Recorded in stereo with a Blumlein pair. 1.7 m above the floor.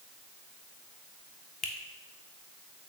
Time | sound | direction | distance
1.6 | a finger snap | 20° left | 1.0 m